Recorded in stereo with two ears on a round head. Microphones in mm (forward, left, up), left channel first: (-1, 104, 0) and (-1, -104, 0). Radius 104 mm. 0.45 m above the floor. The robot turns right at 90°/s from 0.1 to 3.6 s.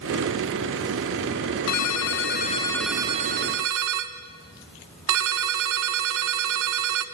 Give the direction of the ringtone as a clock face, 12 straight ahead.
10 o'clock.